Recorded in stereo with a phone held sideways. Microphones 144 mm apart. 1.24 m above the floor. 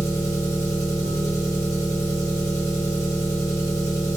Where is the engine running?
20° left (ahead or behind), 1.1 m.